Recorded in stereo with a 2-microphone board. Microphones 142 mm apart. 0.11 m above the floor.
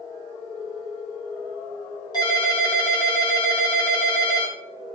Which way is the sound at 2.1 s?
30° left (ahead or behind).